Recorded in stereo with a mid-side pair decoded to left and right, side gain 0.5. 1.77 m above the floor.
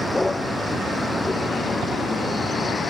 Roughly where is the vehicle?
Ahead.